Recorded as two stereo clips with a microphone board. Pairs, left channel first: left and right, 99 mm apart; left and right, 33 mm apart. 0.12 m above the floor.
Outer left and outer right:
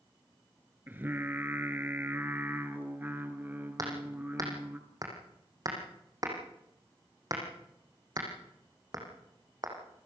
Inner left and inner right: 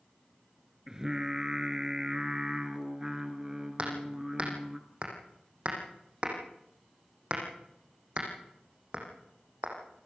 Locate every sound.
0.9 s singing: 20° right (ahead or behind), 1.8 m
3.8 s hammering: 40° right (ahead or behind), 5.5 m